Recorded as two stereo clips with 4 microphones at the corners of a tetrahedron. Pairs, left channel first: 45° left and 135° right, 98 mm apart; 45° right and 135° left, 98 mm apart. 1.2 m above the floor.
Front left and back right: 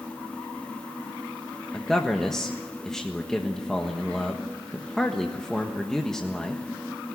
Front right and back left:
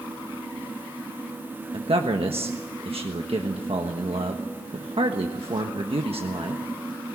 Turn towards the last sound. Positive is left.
turn(degrees=130)